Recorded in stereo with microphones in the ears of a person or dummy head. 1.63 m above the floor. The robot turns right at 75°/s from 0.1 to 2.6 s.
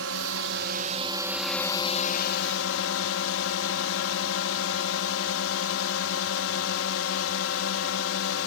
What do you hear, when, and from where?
0.0 s a drone: 105° right; by 8.5 s 85° left